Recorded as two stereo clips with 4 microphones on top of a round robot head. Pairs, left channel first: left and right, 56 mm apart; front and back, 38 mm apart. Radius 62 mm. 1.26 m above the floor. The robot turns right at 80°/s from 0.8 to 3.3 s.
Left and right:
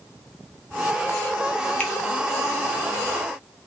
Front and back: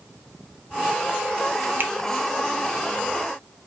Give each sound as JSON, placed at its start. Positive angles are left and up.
{"t": 1.8, "sound": "a finger snap", "azimuth_deg": 160, "distance_m": 0.5}